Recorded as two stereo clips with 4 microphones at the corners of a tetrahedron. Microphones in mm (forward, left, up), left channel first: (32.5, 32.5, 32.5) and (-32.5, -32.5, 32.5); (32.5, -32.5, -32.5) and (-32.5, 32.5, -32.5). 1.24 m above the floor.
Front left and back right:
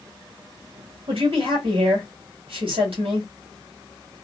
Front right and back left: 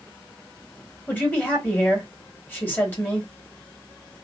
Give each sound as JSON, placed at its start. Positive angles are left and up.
{"t": 1.1, "sound": "a man speaking", "azimuth_deg": -115, "distance_m": 2.0}